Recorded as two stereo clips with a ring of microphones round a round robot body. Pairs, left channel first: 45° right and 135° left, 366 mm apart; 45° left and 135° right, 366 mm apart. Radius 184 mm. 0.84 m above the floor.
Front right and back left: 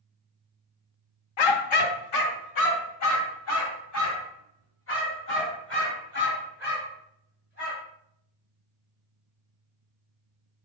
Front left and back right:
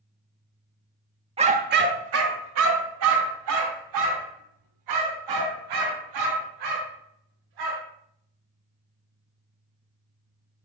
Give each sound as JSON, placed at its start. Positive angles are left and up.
{"t": 1.4, "sound": "a dog barking", "azimuth_deg": -60, "distance_m": 0.8}